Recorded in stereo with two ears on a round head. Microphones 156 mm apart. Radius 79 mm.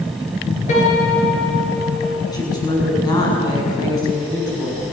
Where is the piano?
40° left (ahead or behind), 6.5 m.